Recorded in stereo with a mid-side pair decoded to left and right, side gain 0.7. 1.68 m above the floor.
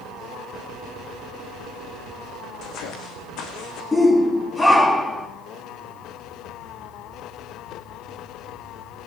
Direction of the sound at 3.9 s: 15° left.